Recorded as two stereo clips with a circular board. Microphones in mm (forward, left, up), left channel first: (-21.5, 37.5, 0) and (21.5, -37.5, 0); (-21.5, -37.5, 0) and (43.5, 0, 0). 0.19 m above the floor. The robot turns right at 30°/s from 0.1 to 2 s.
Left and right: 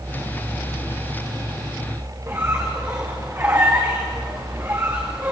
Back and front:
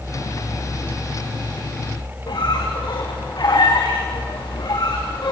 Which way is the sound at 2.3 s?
120° right.